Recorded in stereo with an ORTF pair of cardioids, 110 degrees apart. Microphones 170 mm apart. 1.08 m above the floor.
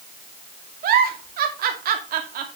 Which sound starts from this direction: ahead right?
A giggle, at 0.8 s.